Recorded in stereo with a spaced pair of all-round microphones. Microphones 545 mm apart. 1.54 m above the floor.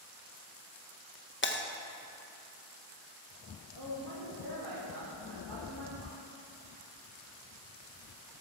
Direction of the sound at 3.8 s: 50° right (ahead or behind).